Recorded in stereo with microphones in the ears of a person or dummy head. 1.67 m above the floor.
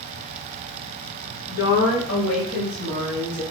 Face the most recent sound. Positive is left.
turn(degrees=75)  # may be behind; listen again after turning